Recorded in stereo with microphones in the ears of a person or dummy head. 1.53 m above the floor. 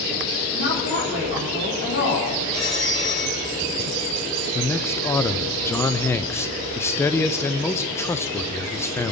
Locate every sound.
0.5 s a woman speaking: 65° left (ahead or behind), 5 m
2.5 s a phone ringing: 20° left (ahead or behind), 3.5 m
4.5 s a man speaking: 15° left (ahead or behind), 0.6 m